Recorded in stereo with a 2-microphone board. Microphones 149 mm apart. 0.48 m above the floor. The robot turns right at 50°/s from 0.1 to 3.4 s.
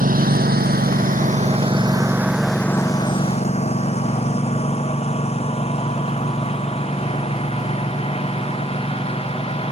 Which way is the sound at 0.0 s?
70° right (ahead or behind).